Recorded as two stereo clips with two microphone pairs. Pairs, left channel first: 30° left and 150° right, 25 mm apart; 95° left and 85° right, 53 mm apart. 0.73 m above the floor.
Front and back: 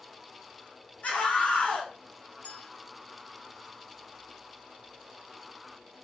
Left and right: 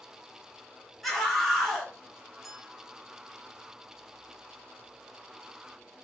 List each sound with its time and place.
1.0 s a scream: 5° left, 3 m
2.4 s a clink: straight ahead, 3 m